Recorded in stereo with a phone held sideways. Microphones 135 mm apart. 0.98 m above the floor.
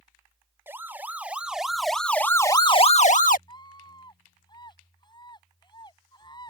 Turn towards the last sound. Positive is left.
turn(degrees=30)  # may be behind; listen again after turning